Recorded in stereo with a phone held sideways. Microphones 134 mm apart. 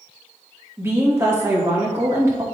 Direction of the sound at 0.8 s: 20° right (ahead or behind).